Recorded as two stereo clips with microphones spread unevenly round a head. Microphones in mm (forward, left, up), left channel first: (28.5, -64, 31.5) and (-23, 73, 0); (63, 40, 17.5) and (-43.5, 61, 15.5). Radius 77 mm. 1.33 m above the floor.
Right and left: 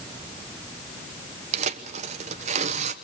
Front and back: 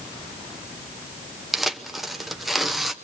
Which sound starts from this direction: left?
Tearing paper, at 1.5 s.